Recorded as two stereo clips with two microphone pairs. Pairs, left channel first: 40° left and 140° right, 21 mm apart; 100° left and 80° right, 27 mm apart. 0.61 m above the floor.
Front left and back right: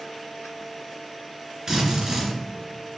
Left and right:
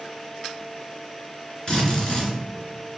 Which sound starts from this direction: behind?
A drill, at 1.7 s.